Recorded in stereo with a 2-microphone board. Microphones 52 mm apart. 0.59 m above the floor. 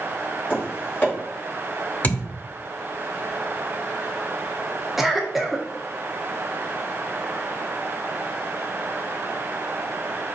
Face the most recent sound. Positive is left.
turn(degrees=-5)  # may be behind; listen again after turning